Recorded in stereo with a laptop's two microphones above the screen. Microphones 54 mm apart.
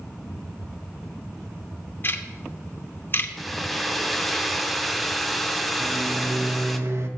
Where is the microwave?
55° right (ahead or behind), 0.9 m.